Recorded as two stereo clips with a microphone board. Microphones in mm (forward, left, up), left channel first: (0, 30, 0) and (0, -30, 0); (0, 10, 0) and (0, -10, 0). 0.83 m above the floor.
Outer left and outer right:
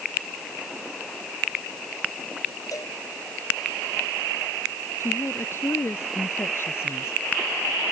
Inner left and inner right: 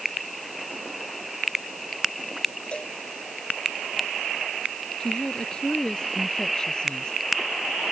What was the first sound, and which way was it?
A cowbell, 80° left.